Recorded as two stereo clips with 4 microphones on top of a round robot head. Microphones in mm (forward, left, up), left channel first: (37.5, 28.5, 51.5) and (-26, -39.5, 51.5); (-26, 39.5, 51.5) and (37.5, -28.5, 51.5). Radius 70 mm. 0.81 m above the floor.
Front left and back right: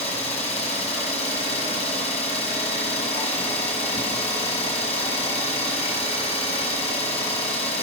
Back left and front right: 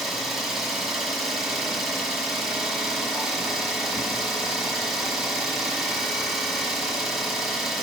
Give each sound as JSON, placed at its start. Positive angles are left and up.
{"t": 0.0, "sound": "an engine running", "azimuth_deg": 40, "distance_m": 3.5}